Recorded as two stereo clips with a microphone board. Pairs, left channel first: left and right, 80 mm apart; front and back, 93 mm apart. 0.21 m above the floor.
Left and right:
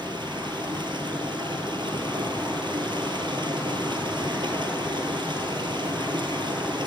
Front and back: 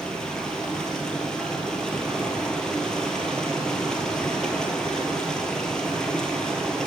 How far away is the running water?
About 1.6 m.